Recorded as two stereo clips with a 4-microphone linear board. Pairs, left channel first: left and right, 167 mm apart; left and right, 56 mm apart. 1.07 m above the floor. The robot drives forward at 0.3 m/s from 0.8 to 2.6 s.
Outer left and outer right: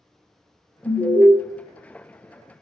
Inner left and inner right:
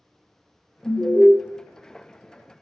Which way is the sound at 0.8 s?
10° left (ahead or behind).